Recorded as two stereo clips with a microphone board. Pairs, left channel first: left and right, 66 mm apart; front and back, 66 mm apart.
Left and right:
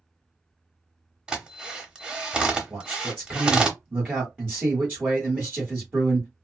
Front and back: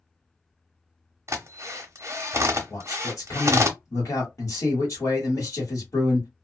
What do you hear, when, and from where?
1.3 s a drill: 160° right, 0.7 m
2.7 s a man speaking: 20° right, 1.4 m